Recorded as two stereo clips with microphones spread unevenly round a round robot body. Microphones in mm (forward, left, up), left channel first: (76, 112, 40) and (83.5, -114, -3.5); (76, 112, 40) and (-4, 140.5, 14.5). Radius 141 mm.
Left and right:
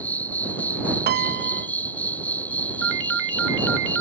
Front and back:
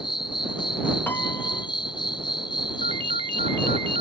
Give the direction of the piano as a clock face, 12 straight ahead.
3 o'clock.